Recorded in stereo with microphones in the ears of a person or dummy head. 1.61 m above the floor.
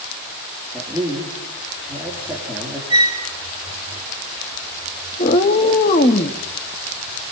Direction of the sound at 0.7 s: 10° right (ahead or behind).